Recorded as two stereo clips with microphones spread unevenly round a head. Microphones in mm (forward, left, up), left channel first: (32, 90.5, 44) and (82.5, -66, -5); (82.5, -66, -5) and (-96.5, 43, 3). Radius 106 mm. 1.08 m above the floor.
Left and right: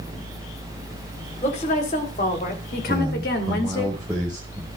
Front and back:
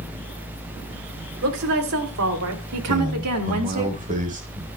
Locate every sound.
1.4 s a woman speaking: 170° left, 4 m; by 3.9 s 145° left, 2.5 m
2.9 s a man speaking: 160° right, 4.5 m